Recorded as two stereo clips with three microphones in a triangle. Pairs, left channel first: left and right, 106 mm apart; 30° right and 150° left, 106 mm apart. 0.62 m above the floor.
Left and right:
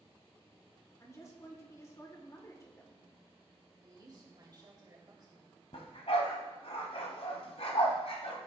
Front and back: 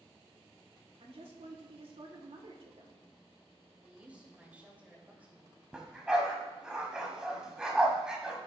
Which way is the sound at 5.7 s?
70° left.